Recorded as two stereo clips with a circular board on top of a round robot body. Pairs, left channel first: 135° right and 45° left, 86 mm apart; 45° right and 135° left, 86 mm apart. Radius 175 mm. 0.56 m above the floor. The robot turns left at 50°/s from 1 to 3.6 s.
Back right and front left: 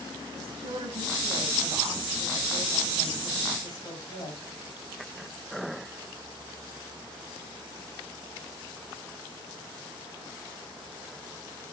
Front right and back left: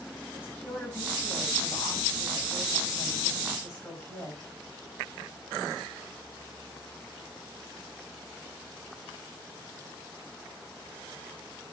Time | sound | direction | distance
0.3 | a woman speaking | 20° left | 9.5 m